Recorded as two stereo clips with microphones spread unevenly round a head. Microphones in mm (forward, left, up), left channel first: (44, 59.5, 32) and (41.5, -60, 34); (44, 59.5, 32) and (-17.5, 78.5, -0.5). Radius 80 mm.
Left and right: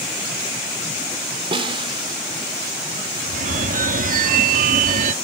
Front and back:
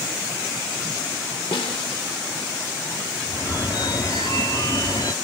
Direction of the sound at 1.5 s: 45° right.